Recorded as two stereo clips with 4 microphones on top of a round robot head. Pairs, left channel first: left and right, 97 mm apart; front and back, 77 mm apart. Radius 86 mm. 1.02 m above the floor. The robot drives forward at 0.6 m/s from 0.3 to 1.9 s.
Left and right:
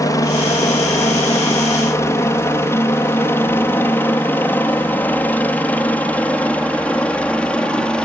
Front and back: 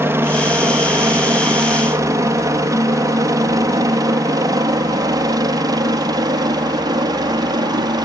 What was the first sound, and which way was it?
A helicopter, 130° left.